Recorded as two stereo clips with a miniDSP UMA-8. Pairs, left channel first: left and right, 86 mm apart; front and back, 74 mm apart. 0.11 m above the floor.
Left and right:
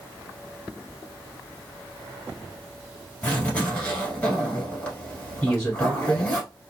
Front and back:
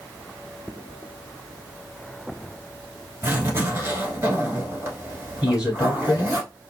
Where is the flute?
No flute in this recording.